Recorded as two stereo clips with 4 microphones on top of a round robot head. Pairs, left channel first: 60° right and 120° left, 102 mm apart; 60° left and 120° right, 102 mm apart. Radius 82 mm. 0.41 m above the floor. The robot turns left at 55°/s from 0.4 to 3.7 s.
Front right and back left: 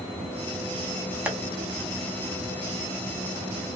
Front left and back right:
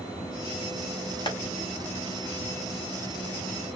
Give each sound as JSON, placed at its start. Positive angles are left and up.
{"t": 1.3, "sound": "tapping", "azimuth_deg": 45, "distance_m": 2.0}